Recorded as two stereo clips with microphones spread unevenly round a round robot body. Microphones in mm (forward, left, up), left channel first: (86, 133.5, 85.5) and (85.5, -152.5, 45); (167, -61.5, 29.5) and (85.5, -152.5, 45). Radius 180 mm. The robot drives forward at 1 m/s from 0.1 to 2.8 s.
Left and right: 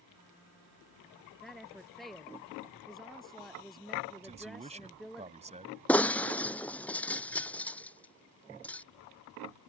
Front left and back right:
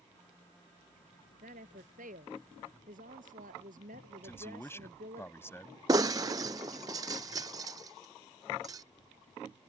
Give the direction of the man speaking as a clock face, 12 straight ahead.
1 o'clock.